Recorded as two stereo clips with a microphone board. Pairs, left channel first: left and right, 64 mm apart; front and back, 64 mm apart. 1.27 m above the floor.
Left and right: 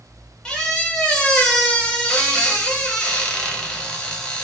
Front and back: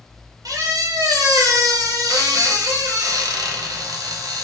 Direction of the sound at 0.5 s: 165° left.